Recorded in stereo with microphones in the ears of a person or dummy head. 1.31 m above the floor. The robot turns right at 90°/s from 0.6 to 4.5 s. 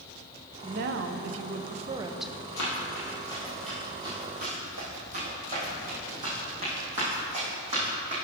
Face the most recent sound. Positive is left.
turn(degrees=-25)  # may be behind; listen again after turning